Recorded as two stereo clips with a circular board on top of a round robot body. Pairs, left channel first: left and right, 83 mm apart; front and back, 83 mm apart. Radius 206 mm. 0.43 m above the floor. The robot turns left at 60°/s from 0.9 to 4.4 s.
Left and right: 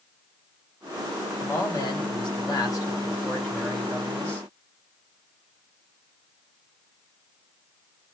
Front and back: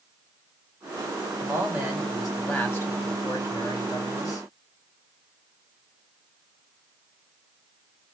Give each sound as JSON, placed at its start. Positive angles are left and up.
{"t": 1.4, "sound": "a man speaking", "azimuth_deg": 135, "distance_m": 1.9}